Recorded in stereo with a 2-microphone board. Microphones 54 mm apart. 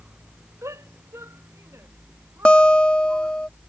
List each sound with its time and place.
0.6 s a shout: 65° right (ahead or behind); by 3.5 s 50° right (ahead or behind)
2.5 s a guitar: 20° left (ahead or behind)